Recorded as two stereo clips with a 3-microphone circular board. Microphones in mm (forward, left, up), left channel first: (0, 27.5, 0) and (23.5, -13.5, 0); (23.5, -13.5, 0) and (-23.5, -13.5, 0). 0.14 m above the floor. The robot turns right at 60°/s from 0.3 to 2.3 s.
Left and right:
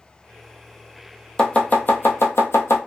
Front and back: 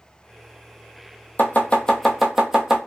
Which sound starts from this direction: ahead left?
Chopping, at 1.4 s.